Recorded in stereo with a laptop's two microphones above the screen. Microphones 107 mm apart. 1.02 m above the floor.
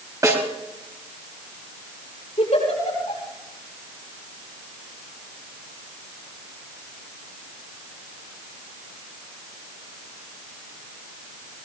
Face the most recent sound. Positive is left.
turn(degrees=85)